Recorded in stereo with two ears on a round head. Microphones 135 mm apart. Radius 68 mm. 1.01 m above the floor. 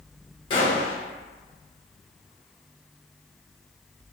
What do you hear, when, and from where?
0.5 s a gunshot: 35° left (ahead or behind), 1.4 m